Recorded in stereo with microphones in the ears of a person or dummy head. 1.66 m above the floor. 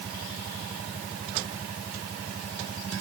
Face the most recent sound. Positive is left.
No sound to turn to.